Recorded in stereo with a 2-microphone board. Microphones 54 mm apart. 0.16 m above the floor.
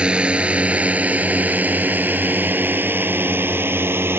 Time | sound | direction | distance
0.0 | a drone | 20° right (ahead or behind) | ?